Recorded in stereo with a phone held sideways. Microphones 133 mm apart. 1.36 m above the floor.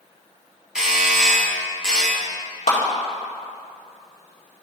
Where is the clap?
60° left (ahead or behind), 2.5 m.